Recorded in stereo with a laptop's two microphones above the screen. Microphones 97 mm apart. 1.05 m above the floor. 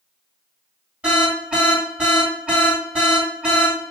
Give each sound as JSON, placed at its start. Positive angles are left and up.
{"t": 1.0, "sound": "an alarm", "side_deg": -10, "distance_m": 3.5}